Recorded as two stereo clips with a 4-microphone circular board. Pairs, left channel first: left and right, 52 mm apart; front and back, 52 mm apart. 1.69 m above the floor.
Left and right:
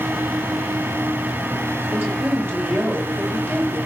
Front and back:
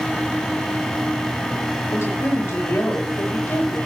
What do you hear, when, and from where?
1.9 s a woman speaking: 45° right, 9 m